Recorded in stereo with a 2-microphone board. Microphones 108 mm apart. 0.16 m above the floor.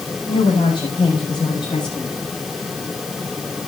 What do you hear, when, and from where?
0.3 s a woman speaking: 40° left (ahead or behind), 7.5 m; by 2.1 s 45° left (ahead or behind), 6.5 m